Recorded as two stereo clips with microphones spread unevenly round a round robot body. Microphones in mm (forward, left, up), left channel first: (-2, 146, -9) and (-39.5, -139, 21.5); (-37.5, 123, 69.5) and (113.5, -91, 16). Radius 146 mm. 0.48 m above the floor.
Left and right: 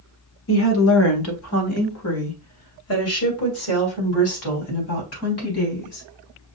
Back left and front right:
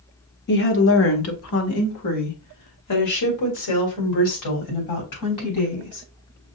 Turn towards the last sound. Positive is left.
turn(degrees=120)